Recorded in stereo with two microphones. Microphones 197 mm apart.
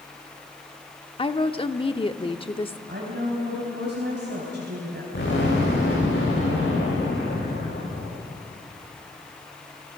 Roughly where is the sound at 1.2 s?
Left.